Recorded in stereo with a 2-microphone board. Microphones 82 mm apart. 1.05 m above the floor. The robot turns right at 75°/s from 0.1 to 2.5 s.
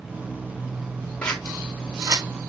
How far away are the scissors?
About 2.5 m.